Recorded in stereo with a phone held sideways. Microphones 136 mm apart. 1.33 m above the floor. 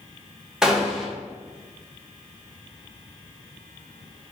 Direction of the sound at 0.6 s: 5° right (ahead or behind).